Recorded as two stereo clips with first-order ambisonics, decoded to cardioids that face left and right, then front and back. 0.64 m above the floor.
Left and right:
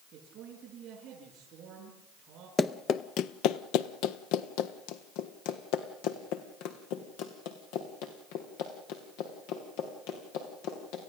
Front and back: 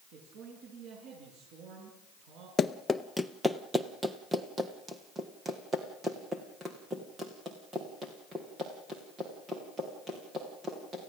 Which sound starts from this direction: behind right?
A man speaking, at 0.1 s.